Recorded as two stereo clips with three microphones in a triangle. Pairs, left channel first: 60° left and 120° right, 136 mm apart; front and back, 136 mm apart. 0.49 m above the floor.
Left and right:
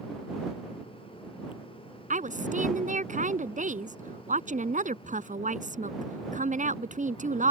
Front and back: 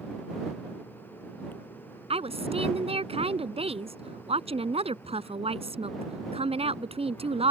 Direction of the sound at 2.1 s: 140° right.